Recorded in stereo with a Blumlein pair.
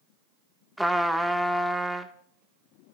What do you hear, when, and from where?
0.8 s a trumpet: straight ahead, 1.3 m